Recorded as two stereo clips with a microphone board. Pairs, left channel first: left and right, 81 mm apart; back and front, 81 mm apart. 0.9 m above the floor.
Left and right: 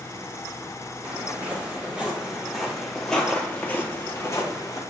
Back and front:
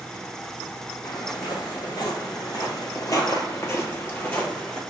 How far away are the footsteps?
About 1.9 m.